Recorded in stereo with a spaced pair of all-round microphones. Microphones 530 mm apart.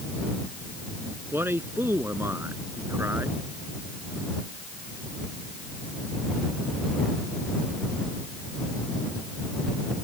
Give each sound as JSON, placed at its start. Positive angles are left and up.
{"t": 1.3, "sound": "a man speaking", "side_deg": -5}